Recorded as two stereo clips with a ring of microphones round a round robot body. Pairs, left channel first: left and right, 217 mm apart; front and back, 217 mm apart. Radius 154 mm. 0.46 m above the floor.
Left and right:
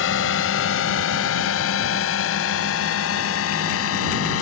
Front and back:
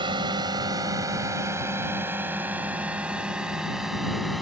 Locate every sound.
0.0 s a drone: 110° left; by 4.4 s 90° left